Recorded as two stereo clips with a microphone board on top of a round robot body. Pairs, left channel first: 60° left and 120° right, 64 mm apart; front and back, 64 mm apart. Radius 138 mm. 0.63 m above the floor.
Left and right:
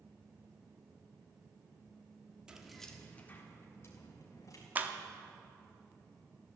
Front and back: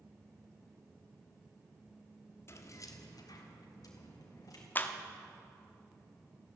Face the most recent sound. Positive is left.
turn(degrees=-60)